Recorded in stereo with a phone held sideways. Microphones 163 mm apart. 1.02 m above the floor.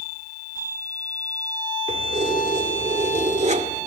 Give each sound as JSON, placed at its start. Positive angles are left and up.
{"t": 1.9, "sound": "keys jangling", "side_deg": -50, "distance_m": 2.0}